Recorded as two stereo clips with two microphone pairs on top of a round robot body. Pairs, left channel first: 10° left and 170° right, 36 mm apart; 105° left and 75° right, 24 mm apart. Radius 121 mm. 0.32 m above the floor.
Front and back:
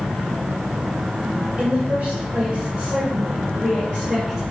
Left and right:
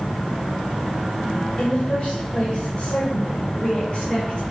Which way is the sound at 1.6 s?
145° left.